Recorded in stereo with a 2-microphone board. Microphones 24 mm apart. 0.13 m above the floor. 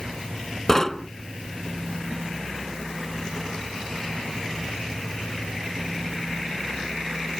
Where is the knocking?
20° left (ahead or behind).